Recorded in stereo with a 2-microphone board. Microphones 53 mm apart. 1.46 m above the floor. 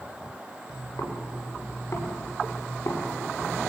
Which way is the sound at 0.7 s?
65° left (ahead or behind).